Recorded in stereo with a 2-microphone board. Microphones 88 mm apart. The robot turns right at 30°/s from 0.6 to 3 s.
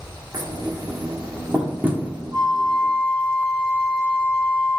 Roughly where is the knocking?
Right.